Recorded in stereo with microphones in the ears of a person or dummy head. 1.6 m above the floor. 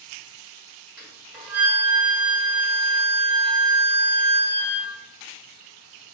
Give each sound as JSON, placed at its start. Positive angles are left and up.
{"t": 1.0, "sound": "a flute", "side_deg": -5, "distance_m": 1.5}